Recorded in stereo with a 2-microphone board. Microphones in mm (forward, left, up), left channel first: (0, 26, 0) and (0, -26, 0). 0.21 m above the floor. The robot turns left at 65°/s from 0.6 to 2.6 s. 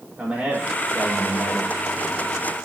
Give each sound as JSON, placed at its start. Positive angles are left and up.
{"t": 0.2, "sound": "a man speaking", "azimuth_deg": -155, "distance_m": 7.5}